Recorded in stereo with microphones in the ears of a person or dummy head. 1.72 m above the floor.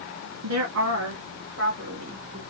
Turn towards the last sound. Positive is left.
turn(degrees=-50)  # may be behind; listen again after turning